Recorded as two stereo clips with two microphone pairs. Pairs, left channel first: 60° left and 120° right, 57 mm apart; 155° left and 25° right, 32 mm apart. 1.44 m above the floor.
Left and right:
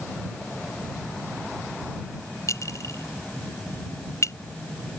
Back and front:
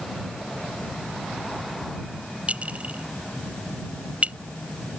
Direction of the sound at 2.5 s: 25° left.